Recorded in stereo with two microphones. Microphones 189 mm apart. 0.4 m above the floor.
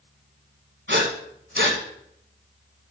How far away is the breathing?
About 1.3 m.